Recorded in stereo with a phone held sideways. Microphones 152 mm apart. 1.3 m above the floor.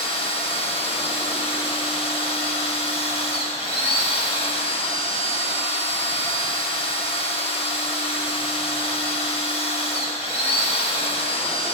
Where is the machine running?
40° left (ahead or behind), 1.0 m.